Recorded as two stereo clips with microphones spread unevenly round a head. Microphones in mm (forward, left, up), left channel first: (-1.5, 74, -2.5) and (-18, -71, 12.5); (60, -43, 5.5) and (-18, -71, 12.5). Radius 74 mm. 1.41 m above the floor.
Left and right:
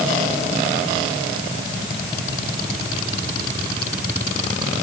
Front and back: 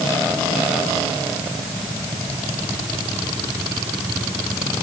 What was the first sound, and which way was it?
Only background noise.